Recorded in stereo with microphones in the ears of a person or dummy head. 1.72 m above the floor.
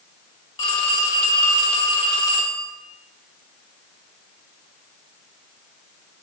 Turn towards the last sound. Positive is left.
turn(degrees=25)  # may be behind; listen again after turning